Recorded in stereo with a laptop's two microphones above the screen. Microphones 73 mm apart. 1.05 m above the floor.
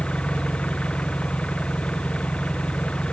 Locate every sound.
0.0 s an engine running: 15° left (ahead or behind)